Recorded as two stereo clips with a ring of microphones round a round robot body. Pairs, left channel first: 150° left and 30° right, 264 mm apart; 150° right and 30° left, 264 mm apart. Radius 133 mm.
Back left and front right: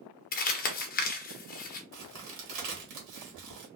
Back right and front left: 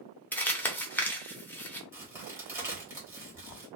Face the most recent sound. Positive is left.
turn(degrees=-50)